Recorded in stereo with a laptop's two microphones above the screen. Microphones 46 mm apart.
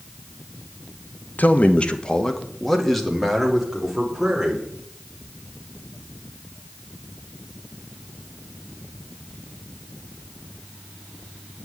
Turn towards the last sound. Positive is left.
turn(degrees=-5)  # may be behind; listen again after turning